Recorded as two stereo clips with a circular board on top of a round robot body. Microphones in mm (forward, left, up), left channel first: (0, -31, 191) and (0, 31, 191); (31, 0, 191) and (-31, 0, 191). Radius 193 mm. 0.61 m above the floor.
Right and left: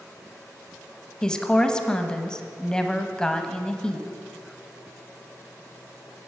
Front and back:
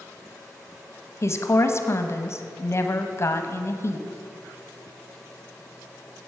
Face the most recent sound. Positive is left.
turn(degrees=-15)